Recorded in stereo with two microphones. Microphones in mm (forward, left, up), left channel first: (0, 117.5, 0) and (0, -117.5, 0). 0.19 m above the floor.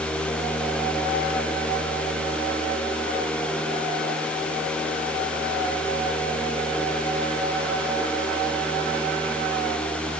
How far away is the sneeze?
No sneeze in this recording.